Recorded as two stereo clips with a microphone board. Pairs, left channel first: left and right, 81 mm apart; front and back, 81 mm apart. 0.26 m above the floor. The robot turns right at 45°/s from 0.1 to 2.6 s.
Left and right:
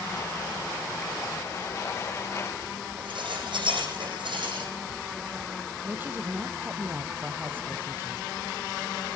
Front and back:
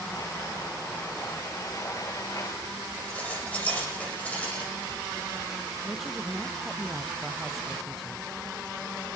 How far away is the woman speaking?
About 1.0 m.